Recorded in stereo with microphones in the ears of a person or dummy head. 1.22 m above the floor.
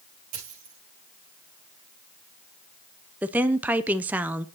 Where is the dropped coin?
45° right (ahead or behind), 6.5 m.